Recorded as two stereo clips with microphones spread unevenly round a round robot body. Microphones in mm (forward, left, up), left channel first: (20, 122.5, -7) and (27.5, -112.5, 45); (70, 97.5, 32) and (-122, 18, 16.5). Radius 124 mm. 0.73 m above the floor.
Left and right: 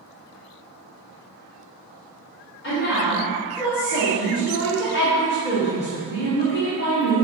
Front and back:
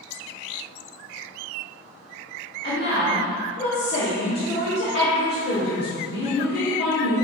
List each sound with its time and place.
2.6 s a woman speaking: 60° left, 1.5 m